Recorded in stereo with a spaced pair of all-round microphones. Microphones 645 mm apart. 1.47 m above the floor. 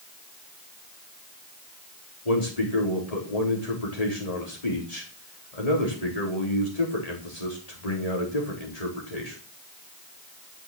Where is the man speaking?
80° left, 4.5 m.